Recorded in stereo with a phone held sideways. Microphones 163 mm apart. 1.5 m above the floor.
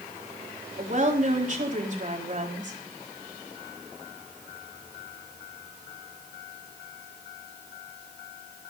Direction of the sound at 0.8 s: 50° right (ahead or behind).